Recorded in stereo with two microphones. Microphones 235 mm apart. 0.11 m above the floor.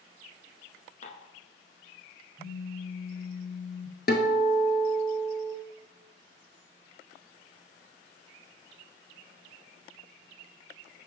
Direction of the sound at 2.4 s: 20° left (ahead or behind).